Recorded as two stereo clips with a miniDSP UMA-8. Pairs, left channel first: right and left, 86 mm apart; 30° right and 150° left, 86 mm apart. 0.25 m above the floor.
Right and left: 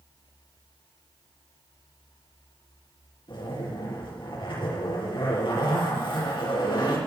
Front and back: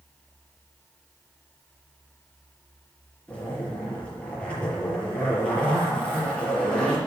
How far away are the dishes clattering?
I don't hear dishes clattering.